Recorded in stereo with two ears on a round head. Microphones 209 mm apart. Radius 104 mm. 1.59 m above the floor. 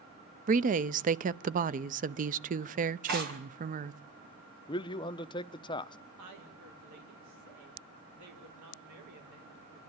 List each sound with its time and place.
0.5 s a woman speaking: 35° right (ahead or behind), 0.6 m
3.1 s tearing paper: 45° right (ahead or behind), 5 m
4.7 s a man speaking: 20° left (ahead or behind), 0.7 m
6.2 s a woman speaking: 90° right, 5 m